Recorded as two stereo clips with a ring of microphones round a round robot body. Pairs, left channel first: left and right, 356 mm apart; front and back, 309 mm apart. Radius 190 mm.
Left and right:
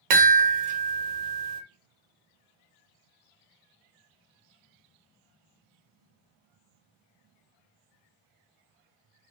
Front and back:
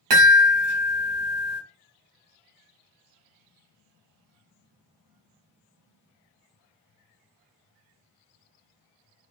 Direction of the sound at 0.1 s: 125° right.